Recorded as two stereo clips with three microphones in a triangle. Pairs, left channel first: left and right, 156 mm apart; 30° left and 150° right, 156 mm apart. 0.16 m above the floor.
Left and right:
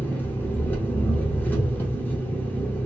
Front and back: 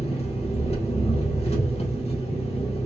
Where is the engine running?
20° left, 1.0 m.